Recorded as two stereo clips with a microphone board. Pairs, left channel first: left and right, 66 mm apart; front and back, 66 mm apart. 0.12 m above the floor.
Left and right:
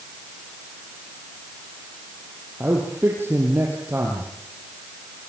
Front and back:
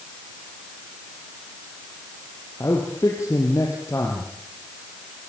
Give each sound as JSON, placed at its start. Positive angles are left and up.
{"t": 2.6, "sound": "a man speaking", "azimuth_deg": -35, "distance_m": 4.5}